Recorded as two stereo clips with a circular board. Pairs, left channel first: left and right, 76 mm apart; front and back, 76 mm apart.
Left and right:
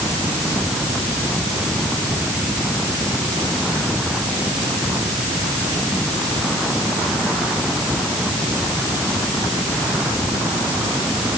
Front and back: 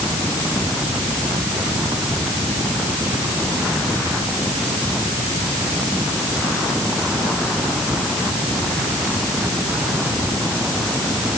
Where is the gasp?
I don't hear a gasp.